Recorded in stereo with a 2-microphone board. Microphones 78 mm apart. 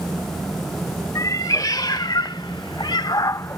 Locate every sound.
1.1 s a cat meowing: 50° left (ahead or behind); by 3.6 s 35° left (ahead or behind)